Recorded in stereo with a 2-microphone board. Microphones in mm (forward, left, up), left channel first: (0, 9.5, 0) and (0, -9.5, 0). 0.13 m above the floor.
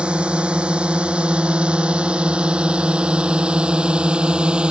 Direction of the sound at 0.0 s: 75° right (ahead or behind).